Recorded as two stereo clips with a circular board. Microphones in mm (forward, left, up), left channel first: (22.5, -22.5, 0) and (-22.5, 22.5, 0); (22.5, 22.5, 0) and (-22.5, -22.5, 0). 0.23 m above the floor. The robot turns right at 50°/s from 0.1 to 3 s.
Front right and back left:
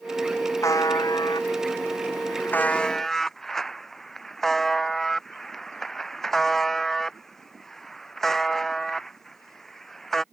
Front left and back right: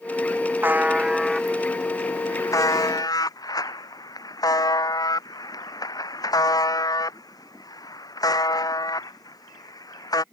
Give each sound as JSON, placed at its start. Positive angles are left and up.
{"t": 0.6, "sound": "a buzzer", "azimuth_deg": -80}